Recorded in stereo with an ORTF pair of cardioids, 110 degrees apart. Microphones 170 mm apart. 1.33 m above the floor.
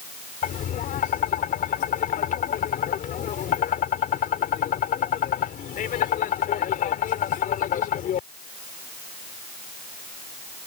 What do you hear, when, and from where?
0.4 s tapping: 55° left